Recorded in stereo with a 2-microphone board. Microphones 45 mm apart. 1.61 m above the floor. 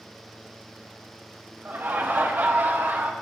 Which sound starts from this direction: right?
Laughter, at 1.6 s.